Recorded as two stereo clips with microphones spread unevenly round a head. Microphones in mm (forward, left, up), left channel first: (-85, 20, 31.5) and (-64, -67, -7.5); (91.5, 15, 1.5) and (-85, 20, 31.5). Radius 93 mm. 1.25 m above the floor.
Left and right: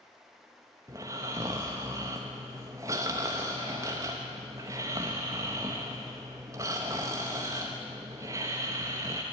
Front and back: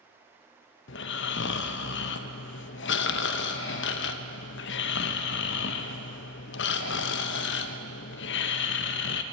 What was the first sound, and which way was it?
Snoring, 10° left.